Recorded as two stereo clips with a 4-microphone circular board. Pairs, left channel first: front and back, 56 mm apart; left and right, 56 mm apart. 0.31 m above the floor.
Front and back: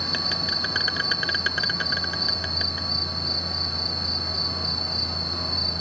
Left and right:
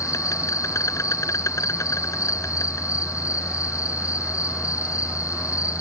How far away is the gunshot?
No gunshot in this recording.